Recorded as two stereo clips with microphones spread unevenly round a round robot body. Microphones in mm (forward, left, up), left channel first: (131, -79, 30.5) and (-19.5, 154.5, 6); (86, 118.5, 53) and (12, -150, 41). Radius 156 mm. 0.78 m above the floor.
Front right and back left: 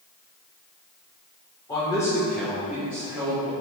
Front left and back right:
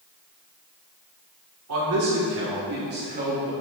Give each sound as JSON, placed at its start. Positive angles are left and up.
{"t": 1.7, "sound": "a man speaking", "azimuth_deg": -135, "distance_m": 2.5}